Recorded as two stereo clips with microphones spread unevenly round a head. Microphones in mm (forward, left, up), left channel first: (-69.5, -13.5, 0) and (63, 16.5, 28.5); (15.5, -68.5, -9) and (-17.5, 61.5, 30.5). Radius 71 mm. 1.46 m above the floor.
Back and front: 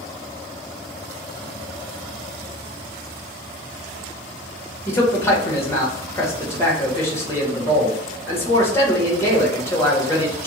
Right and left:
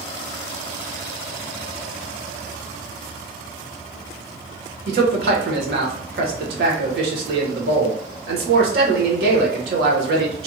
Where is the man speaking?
115° left, 1.3 m.